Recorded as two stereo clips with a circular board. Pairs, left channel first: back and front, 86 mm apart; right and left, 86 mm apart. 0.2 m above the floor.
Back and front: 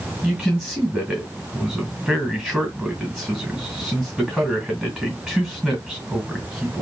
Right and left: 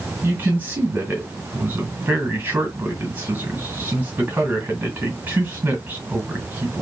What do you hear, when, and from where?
0.2 s a man speaking: 80° left, 1.6 m